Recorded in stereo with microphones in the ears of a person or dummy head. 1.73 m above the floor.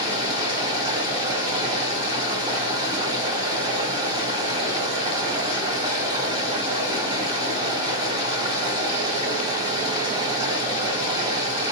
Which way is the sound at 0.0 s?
30° right (ahead or behind).